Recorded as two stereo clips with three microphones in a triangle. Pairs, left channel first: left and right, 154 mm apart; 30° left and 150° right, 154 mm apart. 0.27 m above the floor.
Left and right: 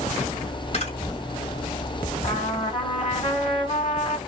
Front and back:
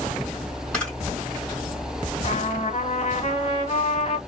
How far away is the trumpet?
About 1.1 m.